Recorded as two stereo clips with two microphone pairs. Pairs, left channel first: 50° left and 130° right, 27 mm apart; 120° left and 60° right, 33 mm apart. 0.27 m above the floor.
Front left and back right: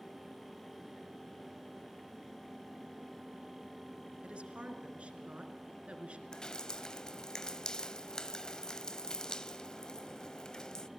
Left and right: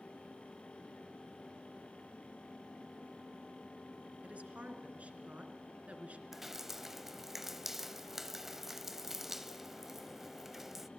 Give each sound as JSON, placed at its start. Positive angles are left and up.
{"t": 4.2, "sound": "a woman speaking", "azimuth_deg": -95, "distance_m": 3.0}
{"t": 6.3, "sound": "dripping", "azimuth_deg": 5, "distance_m": 0.7}